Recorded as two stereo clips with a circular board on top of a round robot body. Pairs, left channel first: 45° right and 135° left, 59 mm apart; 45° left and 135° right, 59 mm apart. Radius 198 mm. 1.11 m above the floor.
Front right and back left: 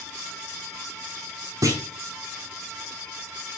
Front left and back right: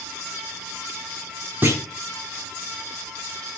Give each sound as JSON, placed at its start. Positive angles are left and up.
{"t": 1.6, "sound": "a clunk", "azimuth_deg": 170, "distance_m": 0.9}